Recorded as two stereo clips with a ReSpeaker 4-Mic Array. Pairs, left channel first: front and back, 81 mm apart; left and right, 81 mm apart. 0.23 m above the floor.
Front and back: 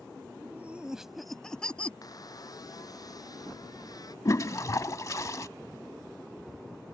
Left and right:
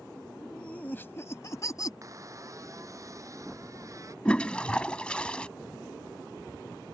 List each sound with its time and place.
0.4 s laughter: 165° left; by 1.9 s 70° left
2.0 s a squeak: 40° right
4.2 s a toilet flushing: 20° left